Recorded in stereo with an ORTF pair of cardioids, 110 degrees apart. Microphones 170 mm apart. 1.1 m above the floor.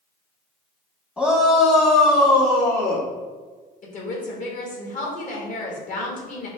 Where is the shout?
10° left, 0.9 m; by 3.1 s 70° left, 2 m.